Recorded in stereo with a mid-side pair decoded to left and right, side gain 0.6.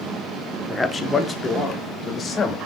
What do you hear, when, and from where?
0.7 s a man speaking: 15° left, 0.6 m; by 2.6 s 30° left, 1.6 m